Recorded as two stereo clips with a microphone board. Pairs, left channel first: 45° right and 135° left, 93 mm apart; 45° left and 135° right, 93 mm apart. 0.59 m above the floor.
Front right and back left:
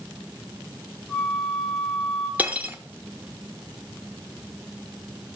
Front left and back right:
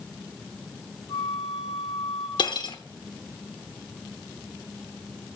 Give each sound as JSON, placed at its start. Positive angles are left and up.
{"t": 1.1, "sound": "a flute", "azimuth_deg": 35, "distance_m": 3.0}
{"t": 2.4, "sound": "cutlery clinking", "azimuth_deg": 65, "distance_m": 0.7}